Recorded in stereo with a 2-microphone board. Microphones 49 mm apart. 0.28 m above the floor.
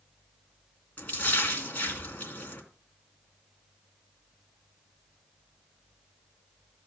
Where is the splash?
30° left (ahead or behind), 3 m.